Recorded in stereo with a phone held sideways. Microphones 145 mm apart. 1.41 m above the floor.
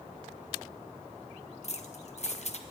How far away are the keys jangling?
About 0.8 m.